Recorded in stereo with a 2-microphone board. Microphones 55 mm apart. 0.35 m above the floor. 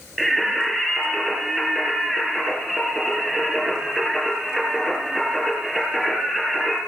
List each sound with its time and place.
0.2 s singing: 5° right (ahead or behind), 3 m